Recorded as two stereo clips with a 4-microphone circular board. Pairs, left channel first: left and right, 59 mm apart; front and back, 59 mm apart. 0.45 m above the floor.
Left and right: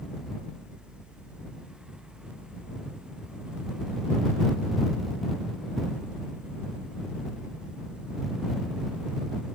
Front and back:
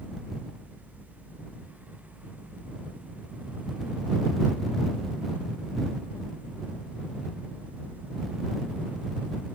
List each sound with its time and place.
Only background noise.